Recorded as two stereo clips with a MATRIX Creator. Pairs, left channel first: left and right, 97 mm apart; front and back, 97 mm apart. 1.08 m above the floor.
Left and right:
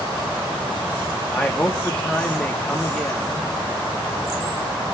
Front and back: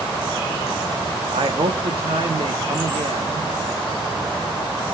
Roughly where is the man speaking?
Behind.